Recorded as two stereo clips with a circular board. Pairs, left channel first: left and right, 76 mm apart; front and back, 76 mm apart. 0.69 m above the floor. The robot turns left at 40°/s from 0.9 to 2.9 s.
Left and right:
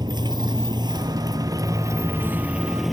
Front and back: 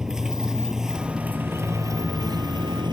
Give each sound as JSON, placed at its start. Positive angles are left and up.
{"t": 0.0, "sound": "a motorcycle", "azimuth_deg": -95}